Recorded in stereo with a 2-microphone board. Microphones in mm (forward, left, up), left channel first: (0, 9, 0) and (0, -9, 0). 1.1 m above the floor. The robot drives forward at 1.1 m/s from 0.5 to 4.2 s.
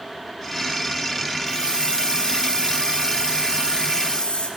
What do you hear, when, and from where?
1.5 s a hiss: 85° left, 7 m; by 4.5 s 70° left (ahead or behind), 7.5 m